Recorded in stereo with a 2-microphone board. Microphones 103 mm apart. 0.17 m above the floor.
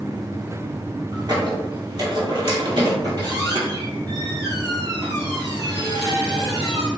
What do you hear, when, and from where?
1.1 s a squeak: 45° right (ahead or behind), 0.9 m